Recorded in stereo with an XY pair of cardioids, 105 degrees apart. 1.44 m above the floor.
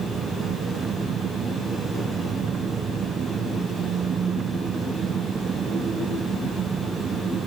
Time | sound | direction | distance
0.0 | an engine running | 45° right | ?